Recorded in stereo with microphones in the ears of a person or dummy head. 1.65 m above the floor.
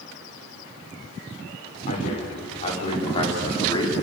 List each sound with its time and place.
1.9 s a man speaking: 45° left (ahead or behind), 6 m; by 3.9 s 25° left (ahead or behind), 4.5 m